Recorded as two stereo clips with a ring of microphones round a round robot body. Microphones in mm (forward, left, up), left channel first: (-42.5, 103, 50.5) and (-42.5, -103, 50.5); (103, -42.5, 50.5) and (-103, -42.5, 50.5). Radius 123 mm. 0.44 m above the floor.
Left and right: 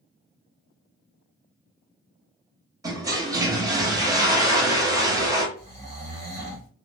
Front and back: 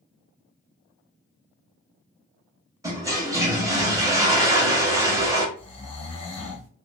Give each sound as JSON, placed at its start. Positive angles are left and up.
{"t": 2.8, "sound": "a toilet flushing", "azimuth_deg": -135, "distance_m": 0.9}
{"t": 5.6, "sound": "snoring", "azimuth_deg": -50, "distance_m": 1.7}